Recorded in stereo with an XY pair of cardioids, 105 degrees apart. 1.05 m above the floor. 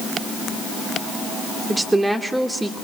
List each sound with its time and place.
1.7 s a woman speaking: 15° right, 2.5 m